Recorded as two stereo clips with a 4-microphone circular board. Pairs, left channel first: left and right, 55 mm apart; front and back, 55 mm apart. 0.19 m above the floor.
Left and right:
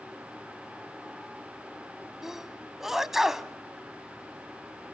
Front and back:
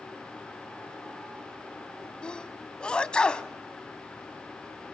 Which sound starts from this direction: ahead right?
A sneeze, at 2.2 s.